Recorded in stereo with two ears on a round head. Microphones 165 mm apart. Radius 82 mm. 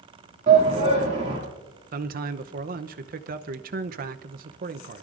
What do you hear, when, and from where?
0.5 s a shout: 35° right (ahead or behind), 2.5 m
1.9 s a man speaking: 45° right (ahead or behind), 0.7 m